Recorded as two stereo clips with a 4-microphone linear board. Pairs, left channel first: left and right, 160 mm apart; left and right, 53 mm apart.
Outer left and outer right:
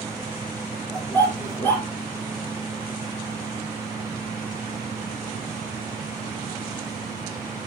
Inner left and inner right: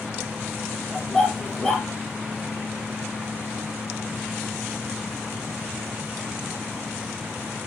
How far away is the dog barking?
About 3 m.